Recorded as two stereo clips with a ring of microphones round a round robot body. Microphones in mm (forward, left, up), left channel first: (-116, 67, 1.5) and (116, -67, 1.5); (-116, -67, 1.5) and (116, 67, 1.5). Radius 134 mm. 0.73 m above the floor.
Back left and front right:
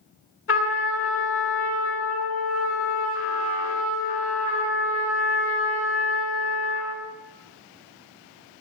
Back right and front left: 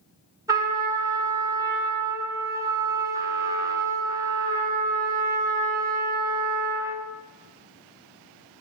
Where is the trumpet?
110° left, 3.5 m.